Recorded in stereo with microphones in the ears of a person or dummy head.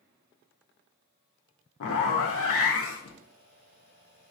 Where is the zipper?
65° left (ahead or behind), 0.5 m.